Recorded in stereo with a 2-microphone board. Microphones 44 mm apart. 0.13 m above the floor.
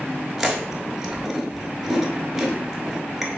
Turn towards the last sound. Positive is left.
turn(degrees=-10)  # may be behind; listen again after turning